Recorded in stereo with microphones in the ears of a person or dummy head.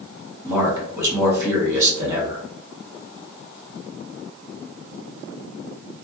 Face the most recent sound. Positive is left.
turn(degrees=-20)  # may be behind; listen again after turning